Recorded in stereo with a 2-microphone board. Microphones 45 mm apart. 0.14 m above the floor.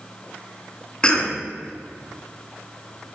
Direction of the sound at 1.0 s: 20° left (ahead or behind).